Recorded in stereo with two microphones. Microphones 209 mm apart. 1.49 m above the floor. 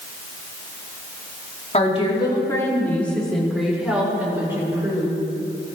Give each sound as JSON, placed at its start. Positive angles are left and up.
{"t": 1.7, "sound": "a woman speaking", "side_deg": 35, "distance_m": 3.0}